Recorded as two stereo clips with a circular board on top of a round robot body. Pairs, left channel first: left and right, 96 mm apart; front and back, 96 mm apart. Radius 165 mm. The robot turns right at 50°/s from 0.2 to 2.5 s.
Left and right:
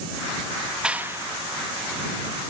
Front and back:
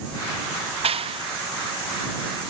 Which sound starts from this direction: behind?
A clap, at 0.8 s.